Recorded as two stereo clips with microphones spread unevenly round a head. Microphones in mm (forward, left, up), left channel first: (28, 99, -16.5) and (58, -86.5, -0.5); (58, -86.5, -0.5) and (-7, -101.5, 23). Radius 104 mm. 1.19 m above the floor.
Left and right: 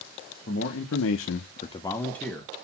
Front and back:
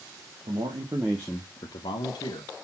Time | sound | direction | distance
0.5 | a man speaking | 145° left | 1.0 m